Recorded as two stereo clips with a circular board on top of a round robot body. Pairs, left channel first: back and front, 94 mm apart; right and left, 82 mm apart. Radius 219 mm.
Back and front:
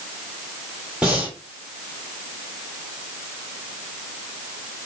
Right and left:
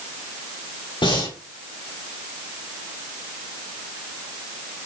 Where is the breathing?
80° right, 6.5 m.